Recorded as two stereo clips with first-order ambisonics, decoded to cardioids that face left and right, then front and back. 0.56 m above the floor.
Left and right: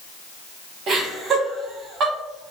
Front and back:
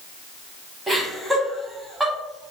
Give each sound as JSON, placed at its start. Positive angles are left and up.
{"t": 0.9, "sound": "laughter", "azimuth_deg": -100, "distance_m": 1.1}